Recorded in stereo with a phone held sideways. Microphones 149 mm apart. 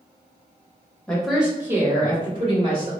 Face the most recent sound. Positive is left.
turn(degrees=-40)  # may be behind; listen again after turning